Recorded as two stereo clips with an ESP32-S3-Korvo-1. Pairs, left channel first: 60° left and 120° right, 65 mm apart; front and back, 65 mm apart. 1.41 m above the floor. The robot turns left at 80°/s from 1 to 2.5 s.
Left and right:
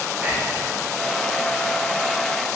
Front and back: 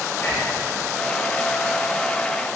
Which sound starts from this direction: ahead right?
Whispering, at 0.2 s.